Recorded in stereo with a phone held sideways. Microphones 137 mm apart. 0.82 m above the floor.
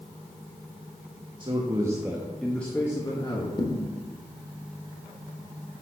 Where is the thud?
35° left (ahead or behind), 1.2 m.